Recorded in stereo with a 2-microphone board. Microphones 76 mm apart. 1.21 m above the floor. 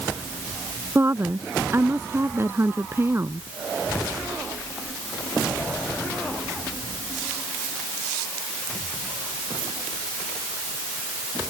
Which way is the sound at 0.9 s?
30° right (ahead or behind).